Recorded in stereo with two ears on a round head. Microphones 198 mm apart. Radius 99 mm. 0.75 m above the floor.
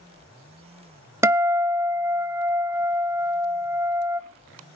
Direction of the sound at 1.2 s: 10° right (ahead or behind).